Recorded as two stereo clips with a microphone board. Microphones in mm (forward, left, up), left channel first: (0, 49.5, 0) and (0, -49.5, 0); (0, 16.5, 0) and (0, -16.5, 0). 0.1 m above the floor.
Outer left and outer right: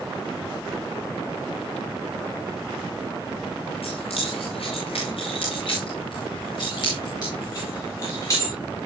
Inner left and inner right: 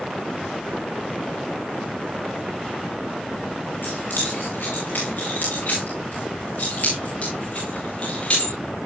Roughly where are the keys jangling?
Left.